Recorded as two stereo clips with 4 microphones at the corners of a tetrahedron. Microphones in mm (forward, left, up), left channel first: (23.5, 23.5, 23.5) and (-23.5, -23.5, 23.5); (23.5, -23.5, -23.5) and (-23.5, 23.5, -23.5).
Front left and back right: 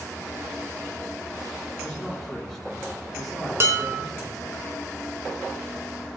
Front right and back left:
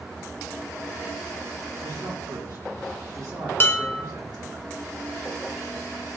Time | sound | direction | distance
1.8 | a man speaking | 130° left | 4.5 m
3.6 | dishes clattering | 95° right | 1.0 m